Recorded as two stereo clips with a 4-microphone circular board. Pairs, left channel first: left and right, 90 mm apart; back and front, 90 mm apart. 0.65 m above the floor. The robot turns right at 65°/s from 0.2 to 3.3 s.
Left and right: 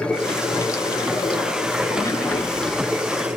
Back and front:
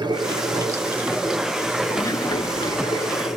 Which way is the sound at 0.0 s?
15° left.